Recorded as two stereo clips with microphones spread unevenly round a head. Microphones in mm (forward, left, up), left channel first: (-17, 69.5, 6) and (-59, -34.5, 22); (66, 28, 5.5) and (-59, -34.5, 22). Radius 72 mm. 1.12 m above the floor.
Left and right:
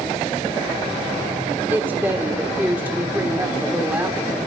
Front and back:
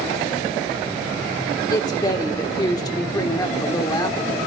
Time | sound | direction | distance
1.7 | a woman speaking | 35° right | 1.2 m